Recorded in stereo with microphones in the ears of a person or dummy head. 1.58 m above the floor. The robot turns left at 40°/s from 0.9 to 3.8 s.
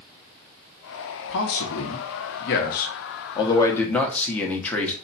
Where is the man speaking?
110° left, 0.9 m; by 4.9 s 10° left, 0.9 m.